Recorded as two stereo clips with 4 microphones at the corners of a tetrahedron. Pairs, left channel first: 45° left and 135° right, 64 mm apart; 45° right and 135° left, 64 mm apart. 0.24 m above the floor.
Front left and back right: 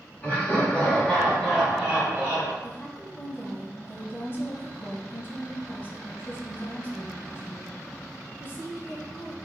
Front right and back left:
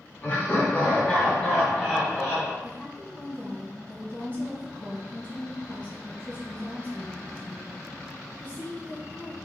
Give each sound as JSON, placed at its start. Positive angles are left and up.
{"t": 0.2, "sound": "laughter", "azimuth_deg": -5, "distance_m": 2.0}
{"t": 2.6, "sound": "a woman speaking", "azimuth_deg": 10, "distance_m": 1.4}